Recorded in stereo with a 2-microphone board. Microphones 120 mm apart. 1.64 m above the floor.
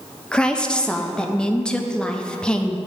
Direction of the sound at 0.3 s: 5° left (ahead or behind).